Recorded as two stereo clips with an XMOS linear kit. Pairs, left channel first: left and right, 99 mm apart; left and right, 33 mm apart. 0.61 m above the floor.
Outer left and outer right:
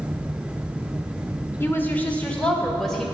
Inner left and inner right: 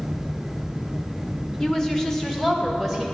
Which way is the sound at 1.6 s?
25° left (ahead or behind).